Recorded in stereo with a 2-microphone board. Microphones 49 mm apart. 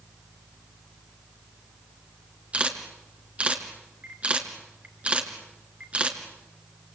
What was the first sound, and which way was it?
A camera shutter, 25° right (ahead or behind).